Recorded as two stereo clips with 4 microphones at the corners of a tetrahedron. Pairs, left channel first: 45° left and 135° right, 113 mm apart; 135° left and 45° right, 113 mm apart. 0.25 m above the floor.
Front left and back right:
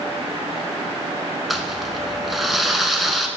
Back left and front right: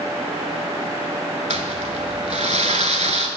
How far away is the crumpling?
About 0.7 m.